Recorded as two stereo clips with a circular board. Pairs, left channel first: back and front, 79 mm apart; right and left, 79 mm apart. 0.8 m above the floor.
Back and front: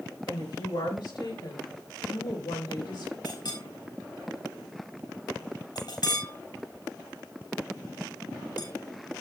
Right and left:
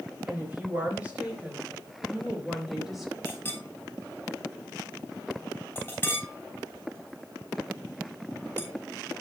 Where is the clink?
160° right, 3 m.